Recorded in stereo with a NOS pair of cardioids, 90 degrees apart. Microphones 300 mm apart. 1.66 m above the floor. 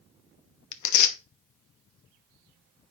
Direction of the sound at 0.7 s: 70° left.